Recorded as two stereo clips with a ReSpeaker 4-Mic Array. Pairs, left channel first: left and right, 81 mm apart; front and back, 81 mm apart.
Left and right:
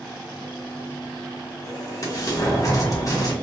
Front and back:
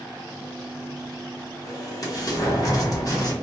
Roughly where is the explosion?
Ahead left.